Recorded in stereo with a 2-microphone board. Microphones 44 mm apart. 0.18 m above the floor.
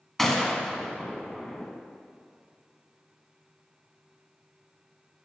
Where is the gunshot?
5° left (ahead or behind), 0.7 m.